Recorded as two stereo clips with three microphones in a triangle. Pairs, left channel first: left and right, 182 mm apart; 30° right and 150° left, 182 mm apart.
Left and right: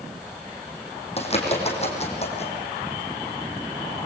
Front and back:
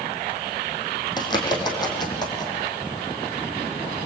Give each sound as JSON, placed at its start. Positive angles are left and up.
{"t": 1.2, "sound": "a bird", "azimuth_deg": 35, "distance_m": 5.5}